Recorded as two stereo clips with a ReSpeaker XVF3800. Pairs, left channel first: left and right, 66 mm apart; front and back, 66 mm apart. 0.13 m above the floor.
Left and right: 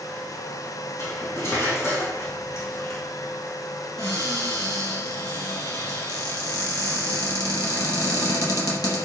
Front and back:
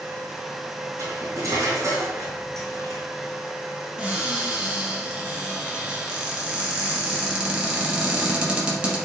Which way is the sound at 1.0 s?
140° left.